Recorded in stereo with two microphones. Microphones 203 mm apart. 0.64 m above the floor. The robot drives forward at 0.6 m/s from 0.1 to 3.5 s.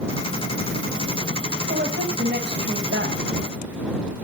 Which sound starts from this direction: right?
A woman speaking, at 1.7 s.